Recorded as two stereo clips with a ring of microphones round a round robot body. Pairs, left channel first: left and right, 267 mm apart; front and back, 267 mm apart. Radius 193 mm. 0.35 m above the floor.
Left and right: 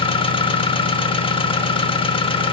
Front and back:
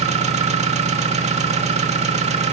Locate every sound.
0.0 s an engine running: 140° left, 1.2 m